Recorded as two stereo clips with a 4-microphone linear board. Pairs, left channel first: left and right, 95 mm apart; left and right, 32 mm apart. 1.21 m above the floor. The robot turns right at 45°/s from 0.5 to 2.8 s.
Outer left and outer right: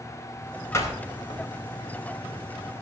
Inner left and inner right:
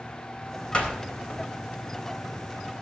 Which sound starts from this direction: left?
A door slam, at 0.7 s.